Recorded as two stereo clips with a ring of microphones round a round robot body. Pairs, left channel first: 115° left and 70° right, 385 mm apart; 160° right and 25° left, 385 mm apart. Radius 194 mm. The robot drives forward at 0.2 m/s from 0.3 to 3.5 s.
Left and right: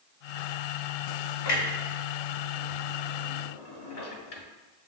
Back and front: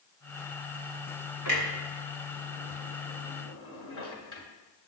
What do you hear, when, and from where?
1.4 s a clunk: 145° left, 1.2 m; by 4.4 s 155° left, 1.5 m